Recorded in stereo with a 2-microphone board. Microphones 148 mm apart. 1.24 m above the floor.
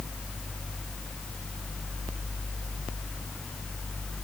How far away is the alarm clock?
I don't hear an alarm clock.